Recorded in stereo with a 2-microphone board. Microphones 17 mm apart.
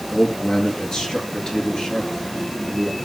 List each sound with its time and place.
0.1 s a man speaking: 45° left (ahead or behind), 5 m; by 3.0 s 65° left (ahead or behind), 6 m